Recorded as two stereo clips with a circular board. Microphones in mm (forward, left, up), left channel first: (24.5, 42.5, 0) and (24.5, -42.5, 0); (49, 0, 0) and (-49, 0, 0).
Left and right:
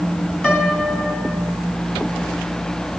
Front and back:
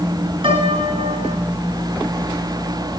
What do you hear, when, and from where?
0.4 s a piano: 165° left, 2.5 m